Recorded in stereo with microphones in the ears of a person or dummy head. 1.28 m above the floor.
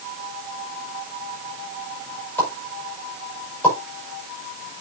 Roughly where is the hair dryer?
I don't hear a hair dryer.